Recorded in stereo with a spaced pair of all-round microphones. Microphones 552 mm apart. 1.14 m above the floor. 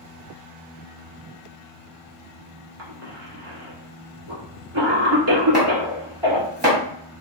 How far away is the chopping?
About 1.6 m.